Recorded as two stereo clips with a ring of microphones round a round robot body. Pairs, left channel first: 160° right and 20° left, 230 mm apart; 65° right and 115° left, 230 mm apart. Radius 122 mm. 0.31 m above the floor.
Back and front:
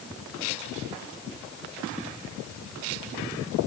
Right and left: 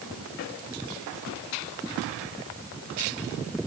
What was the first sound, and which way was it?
Only background noise.